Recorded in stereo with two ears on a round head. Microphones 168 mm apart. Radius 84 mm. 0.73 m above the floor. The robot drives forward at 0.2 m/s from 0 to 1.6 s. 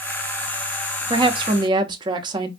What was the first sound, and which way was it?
A woman speaking, 25° right (ahead or behind).